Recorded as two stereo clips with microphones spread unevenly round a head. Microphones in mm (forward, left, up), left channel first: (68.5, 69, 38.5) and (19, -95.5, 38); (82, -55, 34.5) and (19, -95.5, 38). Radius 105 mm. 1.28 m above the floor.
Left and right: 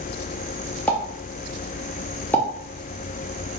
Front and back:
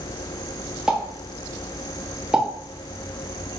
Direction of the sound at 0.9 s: 150° left.